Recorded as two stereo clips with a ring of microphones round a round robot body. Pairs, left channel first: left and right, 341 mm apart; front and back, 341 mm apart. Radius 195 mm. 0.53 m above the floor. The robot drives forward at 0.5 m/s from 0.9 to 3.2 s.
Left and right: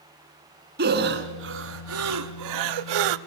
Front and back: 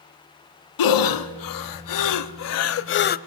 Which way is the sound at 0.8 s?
25° right.